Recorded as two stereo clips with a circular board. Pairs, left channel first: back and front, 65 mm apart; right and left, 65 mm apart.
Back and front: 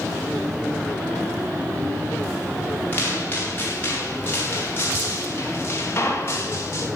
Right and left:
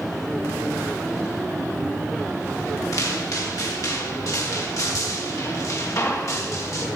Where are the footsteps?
120° right, 7 m; by 6.9 s 130° right, 4 m.